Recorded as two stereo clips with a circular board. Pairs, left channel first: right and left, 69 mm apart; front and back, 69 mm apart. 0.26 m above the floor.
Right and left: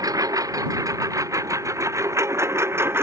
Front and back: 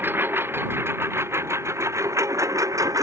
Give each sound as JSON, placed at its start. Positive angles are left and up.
{"t": 0.0, "sound": "a lawn mower", "azimuth_deg": 120}